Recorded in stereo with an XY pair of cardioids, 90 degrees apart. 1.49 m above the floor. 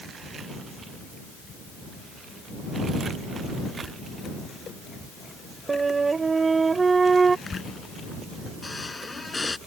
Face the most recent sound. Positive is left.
turn(degrees=25)